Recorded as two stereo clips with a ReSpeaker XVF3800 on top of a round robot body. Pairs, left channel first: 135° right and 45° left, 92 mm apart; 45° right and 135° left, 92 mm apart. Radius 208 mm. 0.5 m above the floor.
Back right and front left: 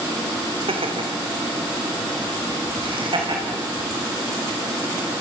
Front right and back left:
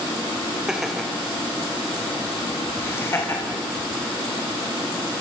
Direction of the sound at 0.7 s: 50° left.